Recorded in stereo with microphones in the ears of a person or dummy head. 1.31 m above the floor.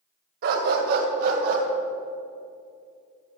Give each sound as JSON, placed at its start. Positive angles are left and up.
{"t": 0.4, "sound": "a dog barking", "side_deg": -55, "distance_m": 2.0}